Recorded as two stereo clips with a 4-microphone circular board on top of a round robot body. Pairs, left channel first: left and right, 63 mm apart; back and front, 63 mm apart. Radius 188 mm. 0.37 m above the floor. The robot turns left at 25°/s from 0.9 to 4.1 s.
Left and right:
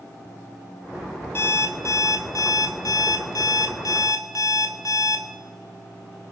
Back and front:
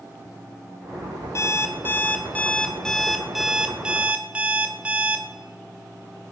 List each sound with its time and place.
1.4 s an alarm clock: 140° left, 1.6 m; by 5.2 s 70° left, 1.6 m